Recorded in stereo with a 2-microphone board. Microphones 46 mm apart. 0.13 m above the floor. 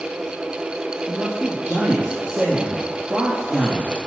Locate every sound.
1.1 s a man speaking: 25° right (ahead or behind), 4 m